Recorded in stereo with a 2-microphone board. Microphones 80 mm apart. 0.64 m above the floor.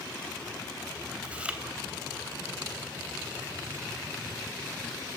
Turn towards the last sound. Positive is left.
turn(degrees=-10)  # may be behind; listen again after turning